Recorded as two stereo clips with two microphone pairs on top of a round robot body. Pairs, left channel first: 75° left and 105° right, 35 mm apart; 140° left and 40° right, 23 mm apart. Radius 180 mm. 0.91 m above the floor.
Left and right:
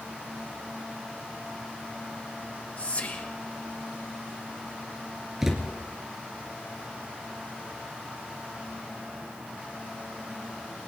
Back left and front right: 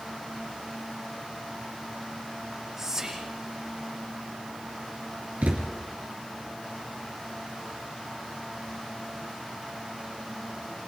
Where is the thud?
25° right, 3 m.